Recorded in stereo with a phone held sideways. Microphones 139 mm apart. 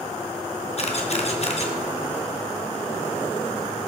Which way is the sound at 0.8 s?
50° left (ahead or behind).